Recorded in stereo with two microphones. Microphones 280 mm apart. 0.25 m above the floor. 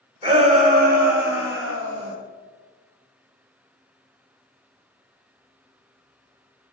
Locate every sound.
0.2 s a shout: 20° right (ahead or behind), 1.6 m; by 2.1 s 50° right (ahead or behind), 2.5 m